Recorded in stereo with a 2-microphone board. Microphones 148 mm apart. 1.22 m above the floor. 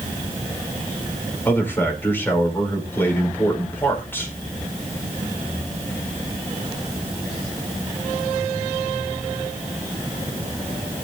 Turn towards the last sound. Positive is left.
turn(degrees=15)  # may be behind; listen again after turning